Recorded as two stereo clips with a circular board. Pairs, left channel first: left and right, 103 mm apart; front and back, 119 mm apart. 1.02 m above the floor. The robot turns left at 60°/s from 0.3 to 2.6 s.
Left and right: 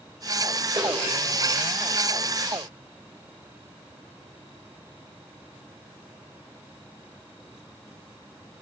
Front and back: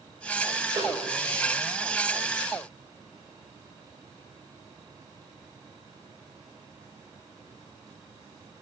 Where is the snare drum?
125° right, 3.5 m; by 0.9 s 135° right, 3.5 m.